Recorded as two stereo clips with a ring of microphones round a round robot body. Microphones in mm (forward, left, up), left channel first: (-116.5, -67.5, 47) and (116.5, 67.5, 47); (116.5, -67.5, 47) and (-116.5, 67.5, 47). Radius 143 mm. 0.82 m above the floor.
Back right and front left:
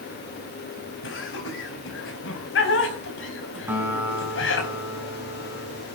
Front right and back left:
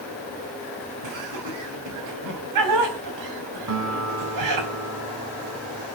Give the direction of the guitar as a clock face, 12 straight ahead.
8 o'clock.